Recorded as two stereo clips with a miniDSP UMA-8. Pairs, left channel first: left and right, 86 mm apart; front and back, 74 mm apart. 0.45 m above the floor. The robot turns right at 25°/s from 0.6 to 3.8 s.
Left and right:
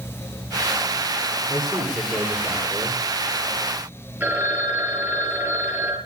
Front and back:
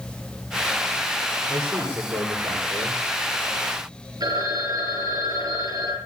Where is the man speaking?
115° left, 9.5 m; by 3.0 s 150° left, 9.5 m.